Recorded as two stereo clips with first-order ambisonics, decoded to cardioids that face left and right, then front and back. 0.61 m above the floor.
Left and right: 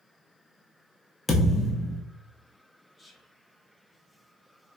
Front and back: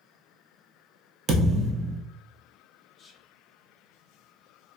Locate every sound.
1.3 s a thud: 170° left, 0.6 m
3.0 s whispering: 5° left, 0.5 m